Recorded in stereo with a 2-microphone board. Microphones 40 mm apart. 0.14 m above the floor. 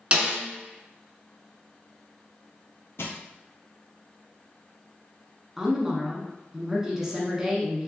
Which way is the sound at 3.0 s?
75° left (ahead or behind).